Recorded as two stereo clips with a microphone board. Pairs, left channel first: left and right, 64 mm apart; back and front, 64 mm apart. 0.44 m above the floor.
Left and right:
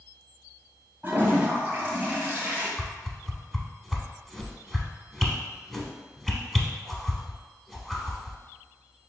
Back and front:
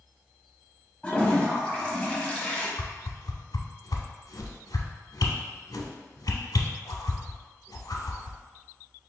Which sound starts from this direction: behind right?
A toilet flushing, at 1.0 s.